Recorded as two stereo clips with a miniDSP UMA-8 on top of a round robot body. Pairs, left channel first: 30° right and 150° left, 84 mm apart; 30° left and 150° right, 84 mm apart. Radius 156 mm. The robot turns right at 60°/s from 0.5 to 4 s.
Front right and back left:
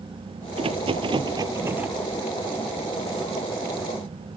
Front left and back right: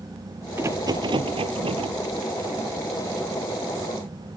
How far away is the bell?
No bell in this recording.